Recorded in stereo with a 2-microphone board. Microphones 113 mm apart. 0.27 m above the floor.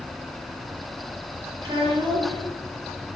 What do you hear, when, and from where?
1.6 s a child speaking: 35° right (ahead or behind), 4 m